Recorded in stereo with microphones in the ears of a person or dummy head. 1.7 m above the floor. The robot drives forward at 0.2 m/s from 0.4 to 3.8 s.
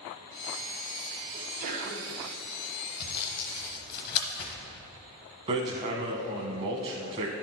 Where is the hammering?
25° right (ahead or behind), 0.8 m.